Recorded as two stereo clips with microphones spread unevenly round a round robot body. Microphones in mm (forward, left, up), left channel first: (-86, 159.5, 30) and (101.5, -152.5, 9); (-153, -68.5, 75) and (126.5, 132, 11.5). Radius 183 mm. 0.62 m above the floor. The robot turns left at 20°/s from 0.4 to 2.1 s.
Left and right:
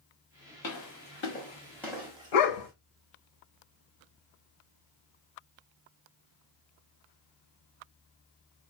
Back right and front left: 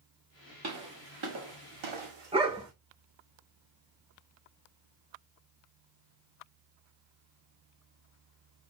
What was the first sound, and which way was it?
Footsteps, 80° left.